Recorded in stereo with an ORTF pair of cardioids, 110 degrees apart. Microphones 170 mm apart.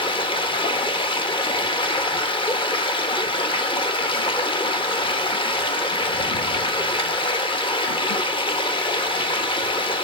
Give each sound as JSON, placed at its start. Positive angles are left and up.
{"t": 0.0, "sound": "running water", "azimuth_deg": 30, "distance_m": 1.2}